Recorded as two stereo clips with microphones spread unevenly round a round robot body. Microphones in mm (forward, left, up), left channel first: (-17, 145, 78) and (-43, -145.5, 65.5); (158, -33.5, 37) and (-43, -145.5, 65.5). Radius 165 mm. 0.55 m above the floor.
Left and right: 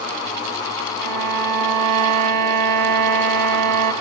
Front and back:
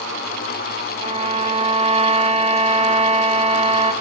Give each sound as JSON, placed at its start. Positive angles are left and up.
{"t": 1.0, "sound": "a violin", "azimuth_deg": -85, "distance_m": 2.5}